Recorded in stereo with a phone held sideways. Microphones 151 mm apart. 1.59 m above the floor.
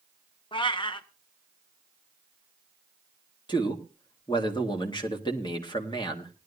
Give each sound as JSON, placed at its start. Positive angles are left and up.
{"t": 0.5, "sound": "a cat meowing", "side_deg": 35, "distance_m": 1.0}
{"t": 3.5, "sound": "a man speaking", "side_deg": 30, "distance_m": 2.0}